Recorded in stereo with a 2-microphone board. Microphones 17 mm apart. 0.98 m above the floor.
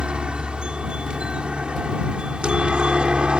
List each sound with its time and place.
0.0 s a helicopter: 65° right (ahead or behind)